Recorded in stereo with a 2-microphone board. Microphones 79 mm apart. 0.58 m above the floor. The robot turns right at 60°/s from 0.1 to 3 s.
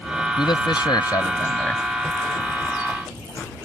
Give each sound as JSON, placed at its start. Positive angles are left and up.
{"t": 0.4, "sound": "a man speaking", "azimuth_deg": 85}